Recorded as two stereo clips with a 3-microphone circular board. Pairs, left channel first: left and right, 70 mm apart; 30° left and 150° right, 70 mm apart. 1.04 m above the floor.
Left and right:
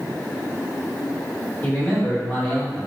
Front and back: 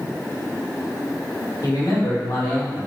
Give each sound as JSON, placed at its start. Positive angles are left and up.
{"t": 1.6, "sound": "a man speaking", "azimuth_deg": 30, "distance_m": 1.8}